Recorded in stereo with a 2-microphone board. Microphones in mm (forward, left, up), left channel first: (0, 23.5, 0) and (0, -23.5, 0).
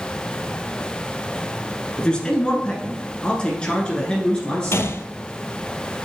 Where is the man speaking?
20° left (ahead or behind), 1.4 m.